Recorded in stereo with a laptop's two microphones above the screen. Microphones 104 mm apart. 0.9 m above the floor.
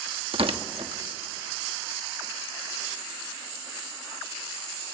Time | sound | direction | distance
0.3 | tearing paper | 65° right (ahead or behind) | 0.9 m